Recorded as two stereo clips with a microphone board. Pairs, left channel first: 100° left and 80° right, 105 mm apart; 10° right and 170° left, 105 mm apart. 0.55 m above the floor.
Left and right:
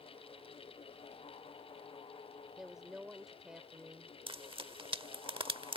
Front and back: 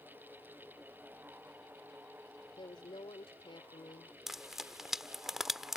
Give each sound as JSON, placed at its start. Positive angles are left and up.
{"t": 2.6, "sound": "a woman speaking", "azimuth_deg": 5}
{"t": 4.3, "sound": "frying", "azimuth_deg": -105}